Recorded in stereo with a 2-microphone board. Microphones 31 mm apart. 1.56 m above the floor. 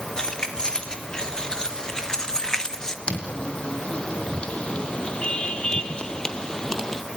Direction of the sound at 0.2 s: 25° left (ahead or behind).